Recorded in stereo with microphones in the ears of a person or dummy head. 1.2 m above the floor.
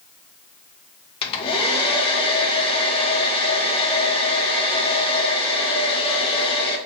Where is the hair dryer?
35° left (ahead or behind), 0.6 m.